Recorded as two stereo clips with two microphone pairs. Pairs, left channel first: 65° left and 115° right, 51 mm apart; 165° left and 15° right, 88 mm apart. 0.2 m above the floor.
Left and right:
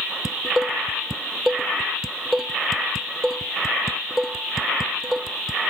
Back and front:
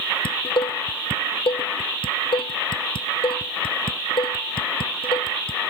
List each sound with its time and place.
0.2 s dishes clattering: 165° left